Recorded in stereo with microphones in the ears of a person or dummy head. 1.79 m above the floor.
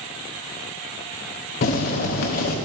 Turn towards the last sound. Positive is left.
turn(degrees=50)  # may be behind; listen again after turning